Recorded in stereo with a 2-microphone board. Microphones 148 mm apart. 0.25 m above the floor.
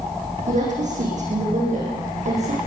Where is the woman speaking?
55° right (ahead or behind), 9.5 m.